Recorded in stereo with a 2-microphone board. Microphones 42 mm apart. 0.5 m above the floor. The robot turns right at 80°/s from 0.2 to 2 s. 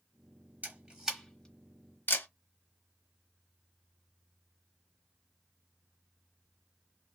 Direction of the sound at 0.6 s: 45° right (ahead or behind).